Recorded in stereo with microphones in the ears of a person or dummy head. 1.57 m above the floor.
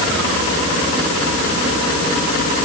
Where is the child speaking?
No child speaking in this recording.